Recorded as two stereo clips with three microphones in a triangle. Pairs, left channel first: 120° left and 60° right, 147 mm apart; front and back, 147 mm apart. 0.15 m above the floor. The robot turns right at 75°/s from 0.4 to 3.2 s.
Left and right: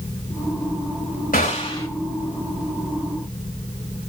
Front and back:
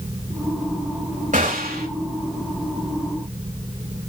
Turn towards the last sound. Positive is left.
turn(degrees=-75)